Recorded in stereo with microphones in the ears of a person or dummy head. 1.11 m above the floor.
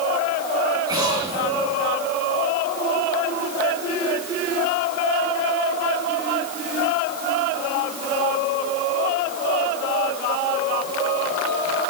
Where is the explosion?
25° right (ahead or behind), 4.5 m.